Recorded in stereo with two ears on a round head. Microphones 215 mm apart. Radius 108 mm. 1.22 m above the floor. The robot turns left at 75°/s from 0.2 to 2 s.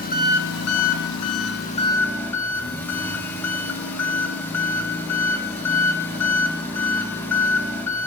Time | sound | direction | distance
0.0 | an engine running | 145° left | 1.0 m